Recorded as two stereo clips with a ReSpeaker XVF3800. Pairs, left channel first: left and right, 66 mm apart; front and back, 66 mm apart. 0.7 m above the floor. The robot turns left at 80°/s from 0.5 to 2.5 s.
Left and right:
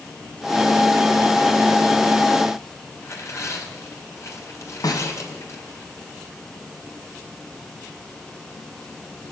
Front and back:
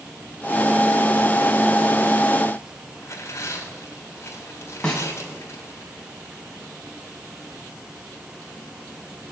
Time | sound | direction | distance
3.0 | tearing paper | 45° left | 3 m
4.8 | a snare drum | 80° left | 3 m